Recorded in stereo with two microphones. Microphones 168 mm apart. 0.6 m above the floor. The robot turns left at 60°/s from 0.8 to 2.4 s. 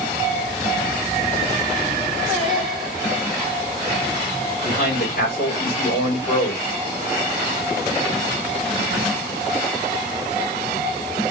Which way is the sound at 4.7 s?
60° left (ahead or behind).